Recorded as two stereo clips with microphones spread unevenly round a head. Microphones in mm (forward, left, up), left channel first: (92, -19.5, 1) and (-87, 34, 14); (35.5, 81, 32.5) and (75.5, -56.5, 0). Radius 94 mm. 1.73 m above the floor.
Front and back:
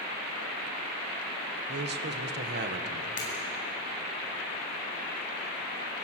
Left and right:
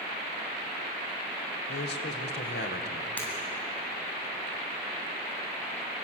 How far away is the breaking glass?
About 9 m.